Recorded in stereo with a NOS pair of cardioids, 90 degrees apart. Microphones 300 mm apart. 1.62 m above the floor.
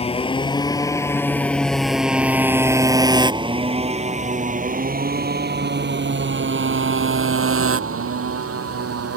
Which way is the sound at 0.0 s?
20° left.